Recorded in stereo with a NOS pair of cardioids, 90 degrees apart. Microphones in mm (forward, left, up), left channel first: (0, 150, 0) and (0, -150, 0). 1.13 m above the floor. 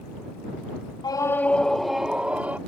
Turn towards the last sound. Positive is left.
turn(degrees=-5)